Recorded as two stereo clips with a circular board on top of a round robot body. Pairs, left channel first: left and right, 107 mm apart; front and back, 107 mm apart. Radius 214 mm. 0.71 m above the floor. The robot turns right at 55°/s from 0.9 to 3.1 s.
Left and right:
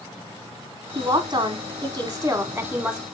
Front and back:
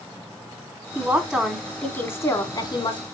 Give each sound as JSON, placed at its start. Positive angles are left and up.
{"t": 0.9, "sound": "a woman speaking", "azimuth_deg": -115, "distance_m": 1.2}